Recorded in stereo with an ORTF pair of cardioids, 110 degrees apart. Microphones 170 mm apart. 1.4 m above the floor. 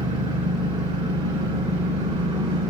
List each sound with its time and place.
0.0 s an engine running: 40° right, 3 m